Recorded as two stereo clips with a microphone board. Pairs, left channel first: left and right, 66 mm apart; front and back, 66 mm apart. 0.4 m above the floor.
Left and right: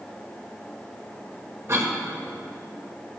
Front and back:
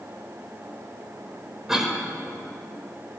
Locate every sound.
1.7 s a cough: 100° right, 1.9 m